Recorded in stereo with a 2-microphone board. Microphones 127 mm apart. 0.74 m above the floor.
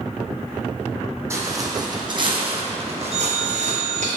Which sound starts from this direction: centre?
A phone ringing, at 3.1 s.